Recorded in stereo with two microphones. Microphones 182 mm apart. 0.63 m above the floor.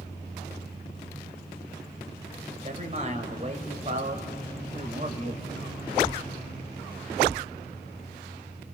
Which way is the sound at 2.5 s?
40° right (ahead or behind).